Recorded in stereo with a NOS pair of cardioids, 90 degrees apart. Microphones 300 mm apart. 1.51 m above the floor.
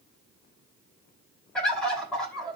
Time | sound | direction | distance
1.6 | a bird | 5° left | 3 m